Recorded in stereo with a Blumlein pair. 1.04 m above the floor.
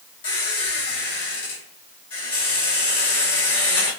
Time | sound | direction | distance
0.2 | a squeak | 55° left | 1.2 m